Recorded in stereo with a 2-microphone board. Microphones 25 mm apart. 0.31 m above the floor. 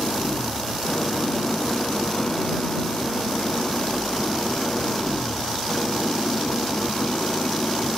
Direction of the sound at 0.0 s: 40° left (ahead or behind).